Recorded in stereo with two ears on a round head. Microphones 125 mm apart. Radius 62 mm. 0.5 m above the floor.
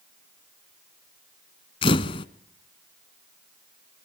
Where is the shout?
No shout in this recording.